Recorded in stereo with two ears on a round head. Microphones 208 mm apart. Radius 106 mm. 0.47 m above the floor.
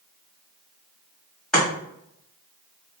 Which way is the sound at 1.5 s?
5° left (ahead or behind).